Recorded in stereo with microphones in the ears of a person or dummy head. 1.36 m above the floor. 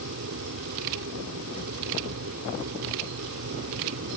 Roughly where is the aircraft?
Right.